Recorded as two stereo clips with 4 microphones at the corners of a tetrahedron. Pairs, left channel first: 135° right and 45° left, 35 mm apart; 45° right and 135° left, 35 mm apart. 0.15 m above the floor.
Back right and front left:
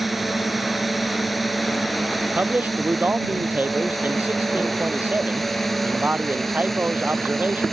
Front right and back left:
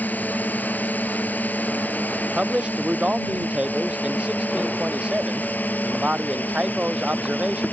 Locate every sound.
0.0 s a drone: 40° right; by 7.7 s 55° right
2.4 s a man speaking: 80° left